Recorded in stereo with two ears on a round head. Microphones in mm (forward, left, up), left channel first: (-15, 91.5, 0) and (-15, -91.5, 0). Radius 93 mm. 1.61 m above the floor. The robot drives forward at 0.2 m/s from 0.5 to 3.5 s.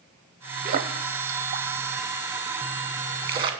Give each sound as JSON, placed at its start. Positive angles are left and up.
{"t": 0.7, "sound": "a splash", "side_deg": -45, "distance_m": 0.7}